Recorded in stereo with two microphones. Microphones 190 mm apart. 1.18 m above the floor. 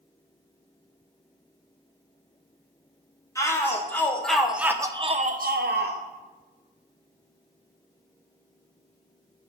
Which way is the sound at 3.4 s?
15° left (ahead or behind).